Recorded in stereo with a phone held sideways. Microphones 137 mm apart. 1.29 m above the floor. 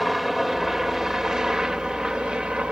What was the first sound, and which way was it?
A helicopter, centre (ahead or behind).